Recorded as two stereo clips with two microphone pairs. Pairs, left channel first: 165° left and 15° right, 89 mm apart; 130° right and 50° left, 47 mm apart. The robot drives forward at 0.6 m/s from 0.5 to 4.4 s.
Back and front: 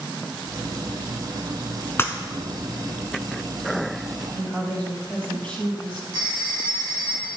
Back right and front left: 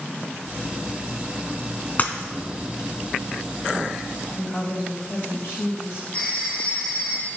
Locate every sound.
2.0 s breaking glass: 145° right, 0.6 m; by 2.1 s 150° right, 0.7 m
4.3 s a woman speaking: 120° right, 3.5 m
6.1 s a phone ringing: 175° left, 3 m